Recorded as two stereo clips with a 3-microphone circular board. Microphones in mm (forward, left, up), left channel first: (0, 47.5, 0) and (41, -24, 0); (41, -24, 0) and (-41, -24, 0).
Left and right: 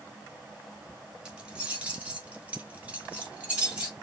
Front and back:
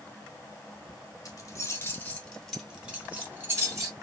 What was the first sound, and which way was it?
Keys jangling, 15° left.